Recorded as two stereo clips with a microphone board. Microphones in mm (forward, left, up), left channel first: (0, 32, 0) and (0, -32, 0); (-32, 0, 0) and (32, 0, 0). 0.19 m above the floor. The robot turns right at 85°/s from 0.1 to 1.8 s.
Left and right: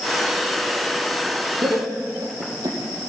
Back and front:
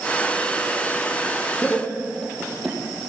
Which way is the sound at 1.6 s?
115° right.